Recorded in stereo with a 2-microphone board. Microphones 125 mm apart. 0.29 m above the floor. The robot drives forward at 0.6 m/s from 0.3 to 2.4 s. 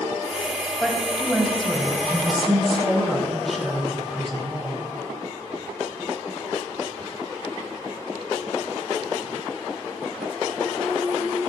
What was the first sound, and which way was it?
A woman speaking, centre (ahead or behind).